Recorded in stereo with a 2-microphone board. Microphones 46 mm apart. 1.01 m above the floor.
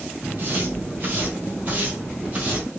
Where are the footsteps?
40° right (ahead or behind), 1.2 m; by 2.7 s 25° right (ahead or behind), 2.0 m.